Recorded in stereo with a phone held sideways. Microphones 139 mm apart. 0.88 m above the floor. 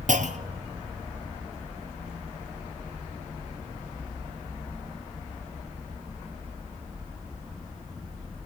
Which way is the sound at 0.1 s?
60° right (ahead or behind).